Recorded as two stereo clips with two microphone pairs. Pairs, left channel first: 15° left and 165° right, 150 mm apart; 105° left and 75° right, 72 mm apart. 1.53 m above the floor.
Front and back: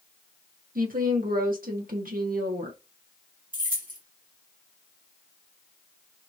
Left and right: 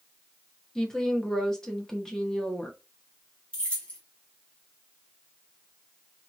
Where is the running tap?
No running tap in this recording.